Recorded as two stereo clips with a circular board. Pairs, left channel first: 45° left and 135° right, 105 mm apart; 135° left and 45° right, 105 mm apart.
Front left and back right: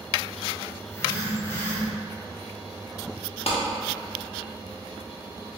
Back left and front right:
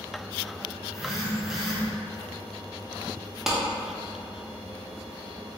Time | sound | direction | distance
0.8 | a phone buzzing | 35° left | 0.6 m
3.5 | a clap | 40° left | 0.6 m